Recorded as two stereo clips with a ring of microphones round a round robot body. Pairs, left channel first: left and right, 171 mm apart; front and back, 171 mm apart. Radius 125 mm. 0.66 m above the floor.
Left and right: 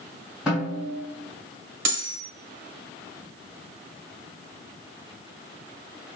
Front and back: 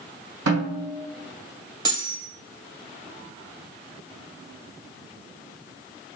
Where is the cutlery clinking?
105° right, 1.9 m.